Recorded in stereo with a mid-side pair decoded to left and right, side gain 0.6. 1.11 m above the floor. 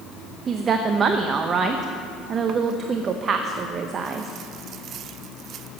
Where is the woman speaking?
40° right, 0.7 m.